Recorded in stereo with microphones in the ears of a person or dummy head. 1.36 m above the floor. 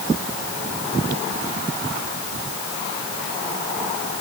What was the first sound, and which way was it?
Only background noise.